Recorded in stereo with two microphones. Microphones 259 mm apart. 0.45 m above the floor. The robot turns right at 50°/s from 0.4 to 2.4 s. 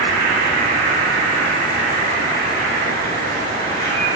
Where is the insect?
40° left, 1.5 m; by 4.2 s 140° left, 1.5 m.